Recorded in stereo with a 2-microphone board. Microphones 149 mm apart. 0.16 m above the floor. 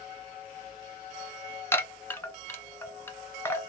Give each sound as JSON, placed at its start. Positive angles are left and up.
{"t": 1.7, "sound": "a chime", "side_deg": 15, "distance_m": 0.7}